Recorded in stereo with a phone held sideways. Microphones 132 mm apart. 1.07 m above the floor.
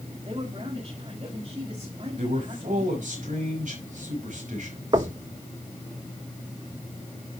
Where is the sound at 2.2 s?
75° right (ahead or behind), 5 m.